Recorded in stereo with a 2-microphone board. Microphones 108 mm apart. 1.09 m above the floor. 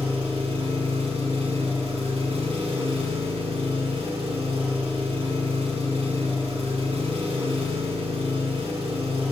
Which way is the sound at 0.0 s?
65° right (ahead or behind).